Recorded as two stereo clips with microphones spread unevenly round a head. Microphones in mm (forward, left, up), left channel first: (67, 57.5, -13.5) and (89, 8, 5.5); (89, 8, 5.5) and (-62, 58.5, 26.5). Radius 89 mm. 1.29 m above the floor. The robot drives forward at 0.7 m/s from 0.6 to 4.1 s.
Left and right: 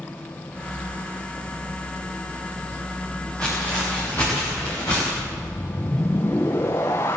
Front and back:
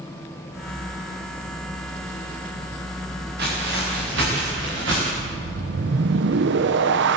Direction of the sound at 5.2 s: 165° left.